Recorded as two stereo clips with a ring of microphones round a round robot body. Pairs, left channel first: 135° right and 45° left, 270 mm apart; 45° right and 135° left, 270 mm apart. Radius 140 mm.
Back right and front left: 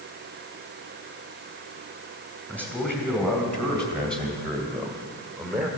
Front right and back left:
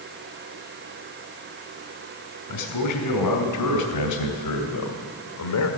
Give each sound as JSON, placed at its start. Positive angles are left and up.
{"t": 2.5, "sound": "a man speaking", "azimuth_deg": -50, "distance_m": 3.5}